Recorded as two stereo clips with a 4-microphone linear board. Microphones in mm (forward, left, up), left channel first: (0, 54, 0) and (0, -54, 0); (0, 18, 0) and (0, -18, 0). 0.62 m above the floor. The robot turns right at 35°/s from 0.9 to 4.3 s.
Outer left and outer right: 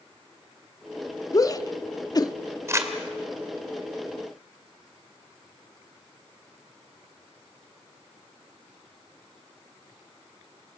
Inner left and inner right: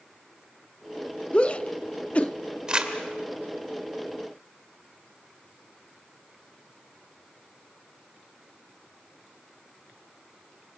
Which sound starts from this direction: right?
Crumpling, at 2.7 s.